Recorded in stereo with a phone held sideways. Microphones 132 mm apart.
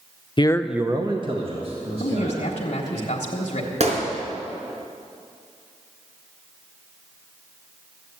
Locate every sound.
0.4 s a man speaking: 40° left (ahead or behind), 0.6 m; by 3.0 s 55° right (ahead or behind), 3.5 m
2.0 s a man speaking: 55° left (ahead or behind), 1.4 m
3.8 s a gunshot: 60° right (ahead or behind), 3.5 m